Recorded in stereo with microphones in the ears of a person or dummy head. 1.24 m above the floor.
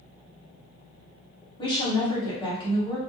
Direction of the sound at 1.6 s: 25° left (ahead or behind).